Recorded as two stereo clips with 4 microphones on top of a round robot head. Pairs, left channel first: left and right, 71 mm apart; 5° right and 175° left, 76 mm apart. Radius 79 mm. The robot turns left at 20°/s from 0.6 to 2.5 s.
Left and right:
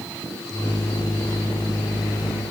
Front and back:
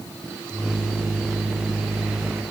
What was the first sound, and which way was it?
Only background noise.